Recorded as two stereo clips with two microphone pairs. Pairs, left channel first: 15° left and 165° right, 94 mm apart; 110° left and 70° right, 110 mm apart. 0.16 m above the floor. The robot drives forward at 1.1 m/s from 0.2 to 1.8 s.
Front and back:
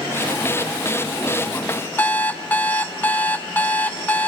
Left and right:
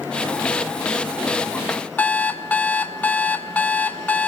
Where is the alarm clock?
60° left, 0.5 m.